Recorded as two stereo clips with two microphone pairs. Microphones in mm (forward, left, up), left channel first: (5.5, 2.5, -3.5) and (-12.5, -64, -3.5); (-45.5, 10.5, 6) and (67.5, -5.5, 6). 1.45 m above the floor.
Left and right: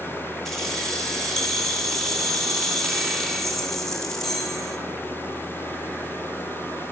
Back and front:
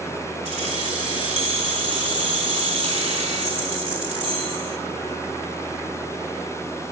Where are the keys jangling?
10° right, 2.5 m.